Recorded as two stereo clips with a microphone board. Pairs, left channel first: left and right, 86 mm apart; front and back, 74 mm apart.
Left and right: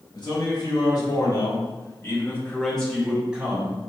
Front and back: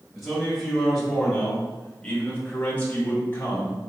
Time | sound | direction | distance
0.1 | a man speaking | 90° left | 1.7 m